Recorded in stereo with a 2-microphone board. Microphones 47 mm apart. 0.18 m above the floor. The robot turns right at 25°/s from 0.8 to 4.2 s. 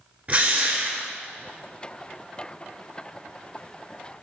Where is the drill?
30° right (ahead or behind), 1.1 m; by 1.1 s 25° right (ahead or behind), 1.1 m.